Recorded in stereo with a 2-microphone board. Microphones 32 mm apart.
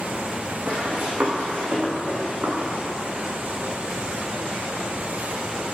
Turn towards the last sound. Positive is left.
turn(degrees=-80)